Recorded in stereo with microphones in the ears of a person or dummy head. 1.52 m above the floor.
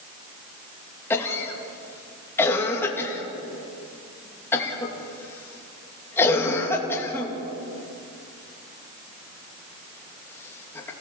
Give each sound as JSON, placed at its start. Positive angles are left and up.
{"t": 1.1, "sound": "a cough", "side_deg": 15, "distance_m": 3.0}